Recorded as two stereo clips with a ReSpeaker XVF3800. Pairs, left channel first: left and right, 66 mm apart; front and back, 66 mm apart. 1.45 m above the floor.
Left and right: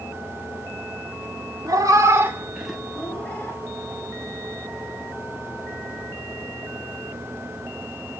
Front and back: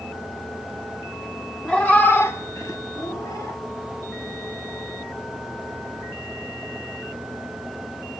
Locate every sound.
1.6 s a cat meowing: 75° right, 1.6 m; by 3.6 s 30° left, 2 m